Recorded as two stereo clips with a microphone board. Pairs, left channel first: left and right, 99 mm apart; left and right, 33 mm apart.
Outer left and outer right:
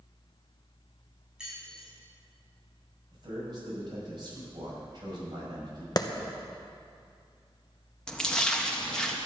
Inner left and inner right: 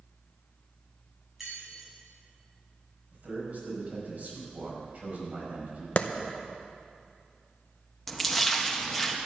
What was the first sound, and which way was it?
Keys jangling, 10° right (ahead or behind).